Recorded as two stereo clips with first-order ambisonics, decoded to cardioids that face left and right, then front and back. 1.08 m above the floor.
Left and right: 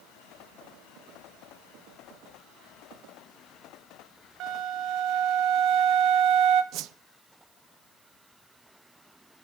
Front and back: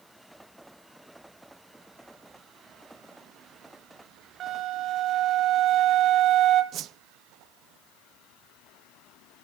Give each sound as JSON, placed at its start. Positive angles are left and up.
{"t": 4.4, "sound": "a flute", "azimuth_deg": -125, "distance_m": 1.5}
{"t": 6.7, "sound": "a whoosh", "azimuth_deg": -130, "distance_m": 0.5}